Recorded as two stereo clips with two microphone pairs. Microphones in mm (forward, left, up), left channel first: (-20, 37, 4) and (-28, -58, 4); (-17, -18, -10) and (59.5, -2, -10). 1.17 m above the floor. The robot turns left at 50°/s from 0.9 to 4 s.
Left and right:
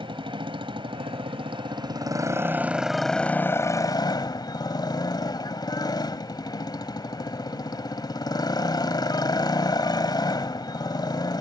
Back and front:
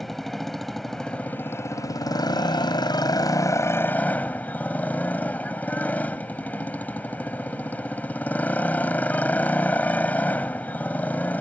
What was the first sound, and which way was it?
A motorcycle, 80° right.